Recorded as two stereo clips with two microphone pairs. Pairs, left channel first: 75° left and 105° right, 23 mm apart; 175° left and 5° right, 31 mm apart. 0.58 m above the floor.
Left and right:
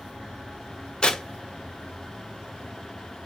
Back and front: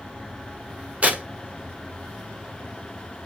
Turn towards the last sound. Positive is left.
turn(degrees=25)